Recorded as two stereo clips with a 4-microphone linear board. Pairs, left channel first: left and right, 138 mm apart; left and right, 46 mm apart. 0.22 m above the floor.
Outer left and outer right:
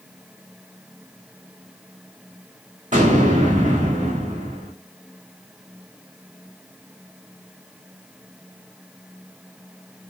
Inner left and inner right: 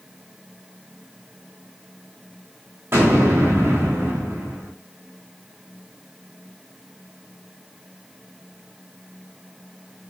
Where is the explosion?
70° right (ahead or behind), 5 m.